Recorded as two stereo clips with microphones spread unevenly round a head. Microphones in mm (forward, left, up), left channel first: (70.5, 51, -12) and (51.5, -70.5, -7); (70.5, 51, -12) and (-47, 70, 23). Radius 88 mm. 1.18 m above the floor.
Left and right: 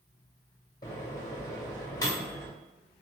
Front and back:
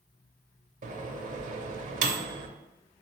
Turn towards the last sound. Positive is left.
turn(degrees=150)